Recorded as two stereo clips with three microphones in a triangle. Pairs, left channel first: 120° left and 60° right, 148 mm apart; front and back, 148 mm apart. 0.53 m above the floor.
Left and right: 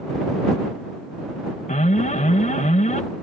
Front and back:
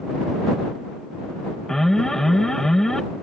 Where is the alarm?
90° left.